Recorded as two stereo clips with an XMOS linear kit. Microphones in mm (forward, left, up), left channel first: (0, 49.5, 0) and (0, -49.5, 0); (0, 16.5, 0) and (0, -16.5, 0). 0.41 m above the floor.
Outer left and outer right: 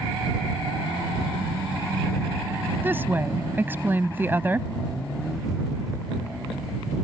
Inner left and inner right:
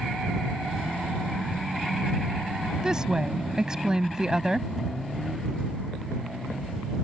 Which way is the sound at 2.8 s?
20° right (ahead or behind).